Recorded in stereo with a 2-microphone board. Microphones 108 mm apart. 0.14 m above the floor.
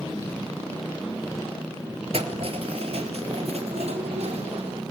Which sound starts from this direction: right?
Keys jangling, at 2.1 s.